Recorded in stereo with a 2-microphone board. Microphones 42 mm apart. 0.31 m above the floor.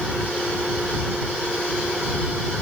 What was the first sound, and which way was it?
Only background noise.